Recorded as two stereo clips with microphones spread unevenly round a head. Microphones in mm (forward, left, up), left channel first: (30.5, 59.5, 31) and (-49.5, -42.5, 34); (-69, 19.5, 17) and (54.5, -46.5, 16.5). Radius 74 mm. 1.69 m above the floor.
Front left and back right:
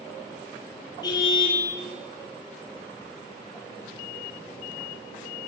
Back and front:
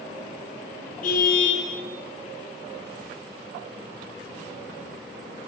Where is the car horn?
115° left, 9 m.